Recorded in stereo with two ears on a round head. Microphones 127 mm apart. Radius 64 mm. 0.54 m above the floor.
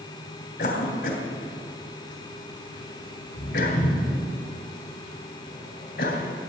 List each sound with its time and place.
0.6 s a cough: 75° left (ahead or behind), 3 m